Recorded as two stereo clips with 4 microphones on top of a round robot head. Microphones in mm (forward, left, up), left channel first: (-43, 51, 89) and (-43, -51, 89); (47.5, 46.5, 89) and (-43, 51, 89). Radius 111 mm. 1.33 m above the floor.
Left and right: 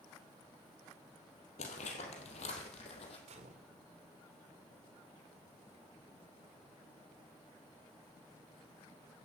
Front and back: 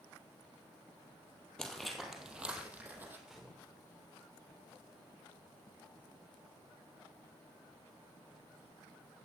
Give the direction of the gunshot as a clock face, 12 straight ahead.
3 o'clock.